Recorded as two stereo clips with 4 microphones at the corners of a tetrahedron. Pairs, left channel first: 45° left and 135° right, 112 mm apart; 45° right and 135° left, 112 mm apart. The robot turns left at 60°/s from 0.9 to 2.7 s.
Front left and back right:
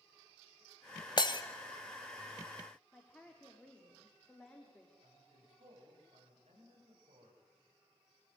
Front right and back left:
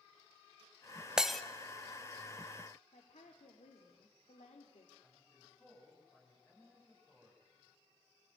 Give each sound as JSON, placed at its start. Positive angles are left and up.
{"t": 1.2, "sound": "breaking glass", "azimuth_deg": 55, "distance_m": 1.2}
{"t": 2.9, "sound": "a woman speaking", "azimuth_deg": -35, "distance_m": 2.5}
{"t": 5.0, "sound": "a man speaking", "azimuth_deg": -115, "distance_m": 10.0}